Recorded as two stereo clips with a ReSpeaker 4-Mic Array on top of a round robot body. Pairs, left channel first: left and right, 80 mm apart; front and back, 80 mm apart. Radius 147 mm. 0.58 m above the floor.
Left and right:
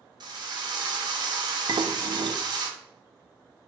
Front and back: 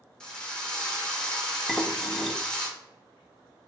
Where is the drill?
80° right, 1.3 m.